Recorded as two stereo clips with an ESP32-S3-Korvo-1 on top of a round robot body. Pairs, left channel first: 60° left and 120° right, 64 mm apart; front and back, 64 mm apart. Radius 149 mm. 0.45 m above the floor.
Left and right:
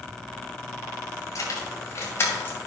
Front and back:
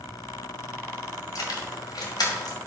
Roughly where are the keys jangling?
Ahead left.